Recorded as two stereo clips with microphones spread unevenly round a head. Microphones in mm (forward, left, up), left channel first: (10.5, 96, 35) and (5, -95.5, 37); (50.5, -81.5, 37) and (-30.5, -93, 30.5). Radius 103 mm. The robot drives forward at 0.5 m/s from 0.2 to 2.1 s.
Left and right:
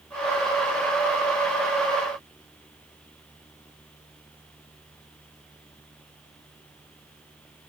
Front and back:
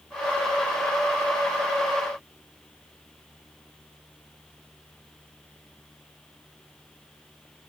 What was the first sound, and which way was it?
Only background noise.